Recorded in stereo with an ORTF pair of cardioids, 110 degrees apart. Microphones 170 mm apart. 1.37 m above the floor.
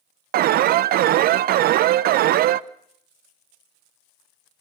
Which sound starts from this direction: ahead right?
An alarm, at 0.3 s.